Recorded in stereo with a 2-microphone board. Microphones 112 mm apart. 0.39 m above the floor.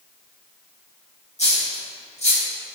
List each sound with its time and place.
1.4 s a dropped coin: 70° left (ahead or behind), 1.8 m